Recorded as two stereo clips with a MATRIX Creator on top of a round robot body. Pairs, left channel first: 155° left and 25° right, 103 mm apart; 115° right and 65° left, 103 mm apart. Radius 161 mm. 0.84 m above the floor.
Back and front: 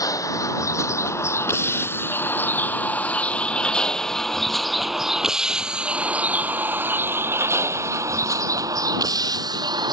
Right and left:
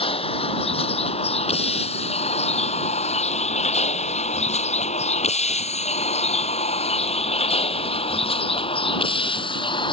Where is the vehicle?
145° right; by 9.9 s 70° right.